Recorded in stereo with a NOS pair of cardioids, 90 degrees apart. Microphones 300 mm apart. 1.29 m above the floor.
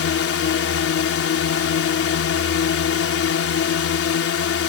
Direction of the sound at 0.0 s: 50° left.